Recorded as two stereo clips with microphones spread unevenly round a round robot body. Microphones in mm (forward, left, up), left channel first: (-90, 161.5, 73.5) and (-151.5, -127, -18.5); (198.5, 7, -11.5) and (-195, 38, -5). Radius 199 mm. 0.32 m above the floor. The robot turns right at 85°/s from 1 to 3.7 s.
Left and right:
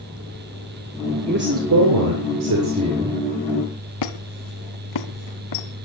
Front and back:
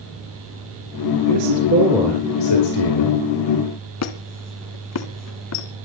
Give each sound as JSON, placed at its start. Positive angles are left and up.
{"t": 1.3, "sound": "a man speaking", "azimuth_deg": -160, "distance_m": 4.5}
{"t": 4.0, "sound": "a squeak", "azimuth_deg": 45, "distance_m": 2.0}